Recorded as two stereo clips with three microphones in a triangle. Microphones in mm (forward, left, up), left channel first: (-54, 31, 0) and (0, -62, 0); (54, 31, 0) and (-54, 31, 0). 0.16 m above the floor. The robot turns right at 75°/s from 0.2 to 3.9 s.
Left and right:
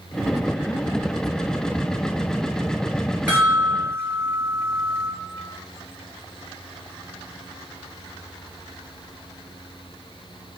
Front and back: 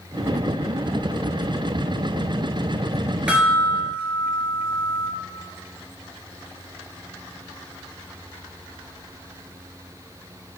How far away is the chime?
About 1.7 m.